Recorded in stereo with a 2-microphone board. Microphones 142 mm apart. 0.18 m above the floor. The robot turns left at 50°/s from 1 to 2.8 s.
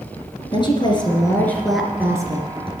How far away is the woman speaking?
About 3 m.